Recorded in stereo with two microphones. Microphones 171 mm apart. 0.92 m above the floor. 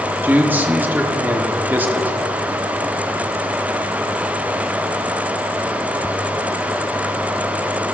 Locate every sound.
0.2 s a man speaking: 10° right (ahead or behind), 1.1 m